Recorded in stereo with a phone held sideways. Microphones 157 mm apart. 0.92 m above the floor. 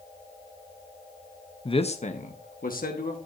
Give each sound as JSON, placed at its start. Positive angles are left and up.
{"t": 1.6, "sound": "a man speaking", "side_deg": 30, "distance_m": 0.8}